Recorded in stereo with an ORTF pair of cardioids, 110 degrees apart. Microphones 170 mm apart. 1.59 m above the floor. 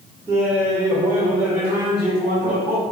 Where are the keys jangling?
No keys jangling in this recording.